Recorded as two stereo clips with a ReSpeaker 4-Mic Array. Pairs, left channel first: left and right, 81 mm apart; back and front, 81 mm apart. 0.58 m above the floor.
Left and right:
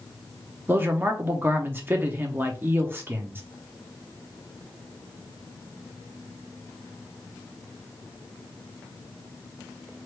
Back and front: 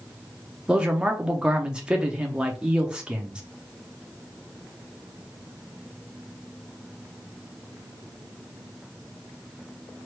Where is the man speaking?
65° right, 0.7 m.